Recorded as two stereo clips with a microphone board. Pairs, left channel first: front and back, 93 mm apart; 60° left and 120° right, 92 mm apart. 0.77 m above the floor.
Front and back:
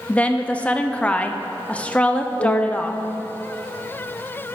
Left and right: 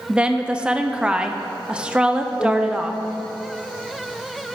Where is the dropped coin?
No dropped coin in this recording.